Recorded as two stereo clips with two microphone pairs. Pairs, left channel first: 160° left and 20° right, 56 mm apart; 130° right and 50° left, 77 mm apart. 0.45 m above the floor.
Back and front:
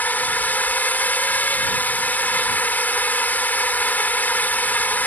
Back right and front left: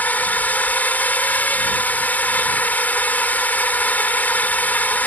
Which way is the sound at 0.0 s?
Straight behind.